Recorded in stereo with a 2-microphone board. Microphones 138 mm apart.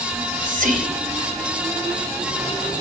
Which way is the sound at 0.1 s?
85° right.